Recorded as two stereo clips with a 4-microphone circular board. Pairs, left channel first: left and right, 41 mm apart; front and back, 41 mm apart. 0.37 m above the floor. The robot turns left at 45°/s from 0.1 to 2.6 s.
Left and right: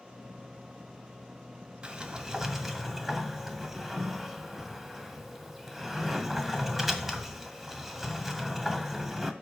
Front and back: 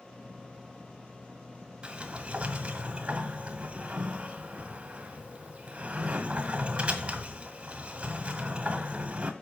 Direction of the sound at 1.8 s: 140° right.